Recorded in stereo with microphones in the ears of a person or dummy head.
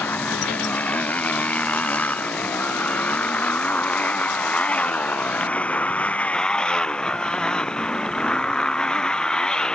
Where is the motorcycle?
15° left (ahead or behind); by 9.8 s 10° left (ahead or behind).